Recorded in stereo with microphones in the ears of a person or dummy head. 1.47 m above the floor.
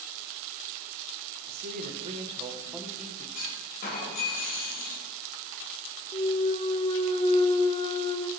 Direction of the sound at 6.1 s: 30° left (ahead or behind).